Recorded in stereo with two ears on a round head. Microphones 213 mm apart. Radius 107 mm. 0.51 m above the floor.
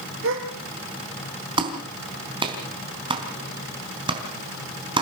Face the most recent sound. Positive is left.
turn(degrees=-20)  # may be behind; listen again after turning